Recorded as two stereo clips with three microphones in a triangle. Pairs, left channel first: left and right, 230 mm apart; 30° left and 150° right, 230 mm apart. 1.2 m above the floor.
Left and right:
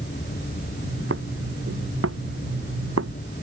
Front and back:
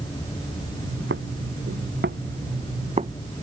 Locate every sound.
0.8 s footsteps: 120° right; by 3.2 s 85° right